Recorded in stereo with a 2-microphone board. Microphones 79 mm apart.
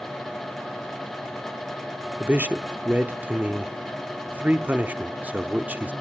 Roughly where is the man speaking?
Right.